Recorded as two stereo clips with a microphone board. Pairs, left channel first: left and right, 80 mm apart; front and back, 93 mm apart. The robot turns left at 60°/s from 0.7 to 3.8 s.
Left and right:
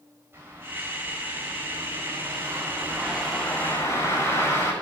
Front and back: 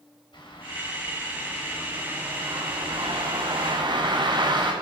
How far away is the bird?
About 7 m.